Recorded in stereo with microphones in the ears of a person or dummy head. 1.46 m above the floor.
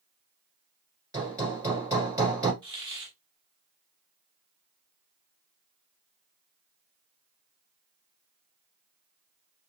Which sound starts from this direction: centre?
Hammering, at 1.1 s.